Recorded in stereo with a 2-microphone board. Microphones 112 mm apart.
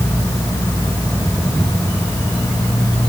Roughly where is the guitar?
No guitar in this recording.